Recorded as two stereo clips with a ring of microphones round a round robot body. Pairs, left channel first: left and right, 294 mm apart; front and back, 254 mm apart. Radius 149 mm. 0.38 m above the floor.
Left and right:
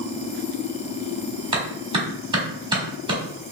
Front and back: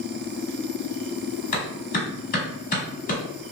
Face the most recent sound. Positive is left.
turn(degrees=-30)